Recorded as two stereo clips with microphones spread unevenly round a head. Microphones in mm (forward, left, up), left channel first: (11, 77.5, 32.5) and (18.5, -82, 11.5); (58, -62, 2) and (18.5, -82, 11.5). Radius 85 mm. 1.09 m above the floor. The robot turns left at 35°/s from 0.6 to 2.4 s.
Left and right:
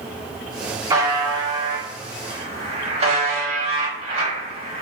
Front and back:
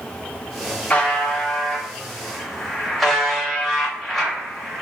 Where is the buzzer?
30° right, 0.9 m; by 4.8 s 80° right, 0.9 m.